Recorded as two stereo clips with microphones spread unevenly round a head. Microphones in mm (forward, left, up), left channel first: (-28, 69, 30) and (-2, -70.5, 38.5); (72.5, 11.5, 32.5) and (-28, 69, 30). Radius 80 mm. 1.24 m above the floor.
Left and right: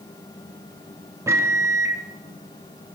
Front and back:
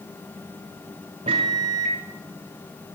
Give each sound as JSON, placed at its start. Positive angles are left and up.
{"t": 1.3, "sound": "a microwave", "azimuth_deg": -150, "distance_m": 0.7}